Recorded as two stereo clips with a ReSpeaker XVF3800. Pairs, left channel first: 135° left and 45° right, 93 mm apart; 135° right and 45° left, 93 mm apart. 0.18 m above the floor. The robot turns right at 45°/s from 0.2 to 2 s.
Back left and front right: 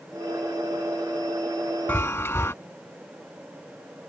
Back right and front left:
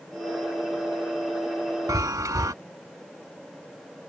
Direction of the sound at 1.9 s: 75° left.